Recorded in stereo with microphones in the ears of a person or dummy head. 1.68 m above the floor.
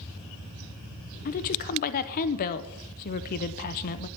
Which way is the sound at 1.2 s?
45° left (ahead or behind).